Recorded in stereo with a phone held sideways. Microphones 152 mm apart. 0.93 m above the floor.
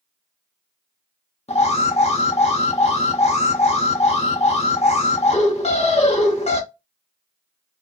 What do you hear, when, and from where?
1.5 s an alarm: 50° left (ahead or behind), 0.7 m